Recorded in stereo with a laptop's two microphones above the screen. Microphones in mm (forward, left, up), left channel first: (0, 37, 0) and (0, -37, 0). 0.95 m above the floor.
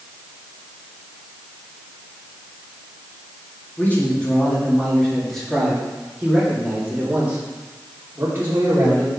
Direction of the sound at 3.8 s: 25° left (ahead or behind).